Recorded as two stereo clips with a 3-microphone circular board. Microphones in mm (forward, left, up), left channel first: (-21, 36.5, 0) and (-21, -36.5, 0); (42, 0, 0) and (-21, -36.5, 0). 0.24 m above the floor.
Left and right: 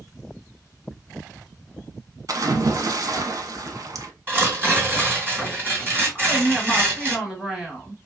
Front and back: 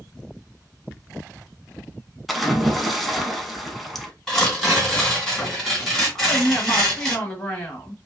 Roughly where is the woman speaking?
Ahead.